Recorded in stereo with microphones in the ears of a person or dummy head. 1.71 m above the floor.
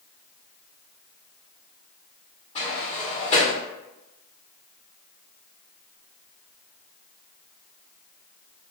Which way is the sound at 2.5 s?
30° left (ahead or behind).